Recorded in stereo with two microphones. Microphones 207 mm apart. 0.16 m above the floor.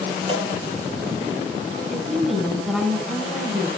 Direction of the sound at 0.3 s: 30° right (ahead or behind).